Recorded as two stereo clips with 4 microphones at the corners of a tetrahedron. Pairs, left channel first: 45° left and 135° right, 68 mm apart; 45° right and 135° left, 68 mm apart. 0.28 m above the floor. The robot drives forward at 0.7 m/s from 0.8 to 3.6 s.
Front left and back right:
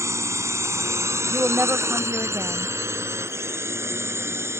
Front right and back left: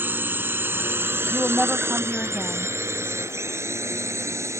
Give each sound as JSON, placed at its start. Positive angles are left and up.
{"t": 0.0, "sound": "a drone", "azimuth_deg": -170}
{"t": 1.3, "sound": "a woman speaking", "azimuth_deg": -85}